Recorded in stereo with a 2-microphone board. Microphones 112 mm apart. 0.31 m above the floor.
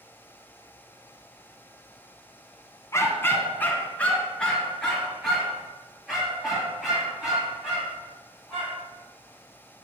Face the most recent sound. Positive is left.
turn(degrees=-5)  # may be behind; listen again after turning